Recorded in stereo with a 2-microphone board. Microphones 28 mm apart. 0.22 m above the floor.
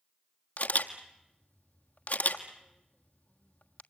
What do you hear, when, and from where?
0.6 s a camera shutter: 70° left (ahead or behind), 1.5 m